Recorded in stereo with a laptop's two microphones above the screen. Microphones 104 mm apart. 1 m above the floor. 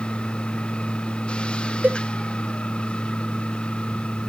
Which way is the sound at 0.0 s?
10° left (ahead or behind).